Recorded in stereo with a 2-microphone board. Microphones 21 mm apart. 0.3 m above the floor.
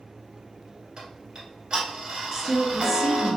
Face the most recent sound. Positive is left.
turn(degrees=-20)  # may be behind; listen again after turning